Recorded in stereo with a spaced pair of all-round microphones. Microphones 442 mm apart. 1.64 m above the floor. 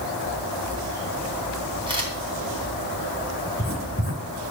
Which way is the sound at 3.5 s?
30° left (ahead or behind).